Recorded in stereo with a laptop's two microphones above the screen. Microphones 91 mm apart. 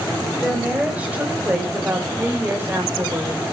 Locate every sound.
0.4 s a woman speaking: 15° right (ahead or behind), 4.5 m; by 3.4 s 35° right (ahead or behind), 3.5 m